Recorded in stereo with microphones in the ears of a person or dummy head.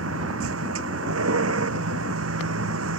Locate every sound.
0.0 s a vehicle: 90° right